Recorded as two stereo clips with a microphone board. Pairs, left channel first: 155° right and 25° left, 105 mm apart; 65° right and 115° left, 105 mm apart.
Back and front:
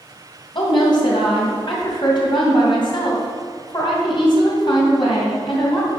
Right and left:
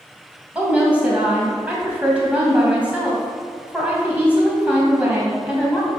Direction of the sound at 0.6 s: 175° right.